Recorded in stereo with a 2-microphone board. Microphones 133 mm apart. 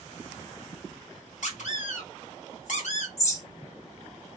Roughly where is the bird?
Left.